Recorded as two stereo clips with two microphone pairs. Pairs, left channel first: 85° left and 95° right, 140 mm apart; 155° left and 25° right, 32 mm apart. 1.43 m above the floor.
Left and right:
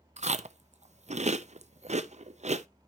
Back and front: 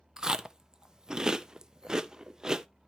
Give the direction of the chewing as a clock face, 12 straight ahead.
3 o'clock.